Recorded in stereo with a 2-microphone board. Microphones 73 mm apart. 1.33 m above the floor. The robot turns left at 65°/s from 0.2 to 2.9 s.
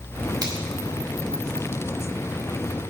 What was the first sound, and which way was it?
A finger snap, 55° right (ahead or behind).